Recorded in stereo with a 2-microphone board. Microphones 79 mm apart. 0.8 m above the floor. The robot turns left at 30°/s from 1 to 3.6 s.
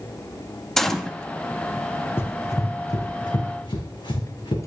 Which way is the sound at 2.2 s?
30° left (ahead or behind).